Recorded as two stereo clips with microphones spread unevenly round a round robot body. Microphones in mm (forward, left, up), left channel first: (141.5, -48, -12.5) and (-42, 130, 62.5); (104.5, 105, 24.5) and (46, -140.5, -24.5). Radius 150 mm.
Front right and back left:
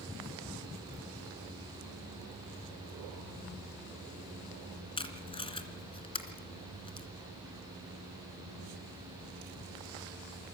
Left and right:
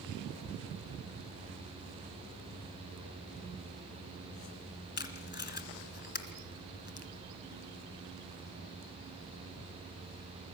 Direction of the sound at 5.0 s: 30° left.